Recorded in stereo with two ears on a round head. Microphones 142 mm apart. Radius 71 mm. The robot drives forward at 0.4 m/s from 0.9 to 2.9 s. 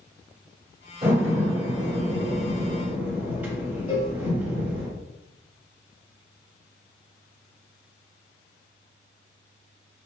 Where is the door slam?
20° right (ahead or behind), 1.2 m; by 4.9 s 10° right (ahead or behind), 1.9 m.